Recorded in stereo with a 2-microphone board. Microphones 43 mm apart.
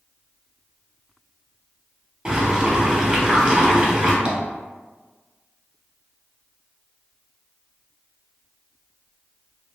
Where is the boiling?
20° right (ahead or behind), 1.1 m.